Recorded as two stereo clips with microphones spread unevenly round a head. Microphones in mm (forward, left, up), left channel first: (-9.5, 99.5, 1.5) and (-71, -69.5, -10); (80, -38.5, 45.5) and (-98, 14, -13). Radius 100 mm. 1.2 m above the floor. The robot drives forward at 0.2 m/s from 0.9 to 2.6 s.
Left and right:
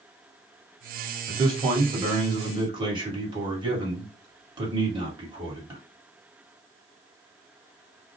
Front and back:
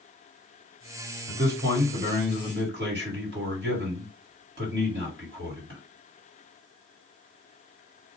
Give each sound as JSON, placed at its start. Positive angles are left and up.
{"t": 1.3, "sound": "a man speaking", "azimuth_deg": -175, "distance_m": 1.3}